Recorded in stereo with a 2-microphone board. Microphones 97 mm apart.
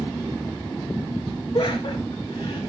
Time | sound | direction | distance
1.5 | laughter | 45° left (ahead or behind) | 9.5 m